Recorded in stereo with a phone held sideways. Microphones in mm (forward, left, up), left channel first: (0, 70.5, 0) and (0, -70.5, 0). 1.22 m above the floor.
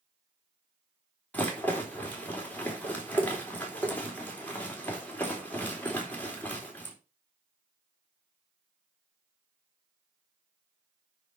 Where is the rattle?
10° left (ahead or behind), 3 m.